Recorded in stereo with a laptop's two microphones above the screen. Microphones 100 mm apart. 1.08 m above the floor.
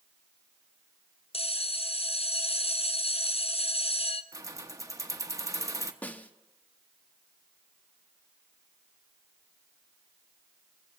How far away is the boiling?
I don't hear boiling.